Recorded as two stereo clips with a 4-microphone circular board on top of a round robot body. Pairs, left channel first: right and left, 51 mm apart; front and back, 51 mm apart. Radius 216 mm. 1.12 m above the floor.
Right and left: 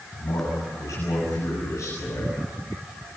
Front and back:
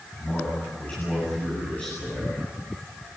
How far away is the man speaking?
About 8.5 m.